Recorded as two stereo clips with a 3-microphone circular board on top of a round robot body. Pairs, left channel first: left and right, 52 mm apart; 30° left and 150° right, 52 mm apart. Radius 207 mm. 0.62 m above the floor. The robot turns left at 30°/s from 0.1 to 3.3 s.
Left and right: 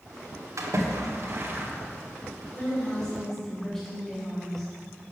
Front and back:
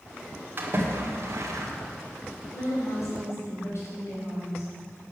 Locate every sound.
0.6 s a splash: 100° right, 1.7 m; by 1.7 s 135° right, 1.7 m
2.5 s a woman speaking: 30° left, 4.5 m; by 4.7 s 10° left, 4.5 m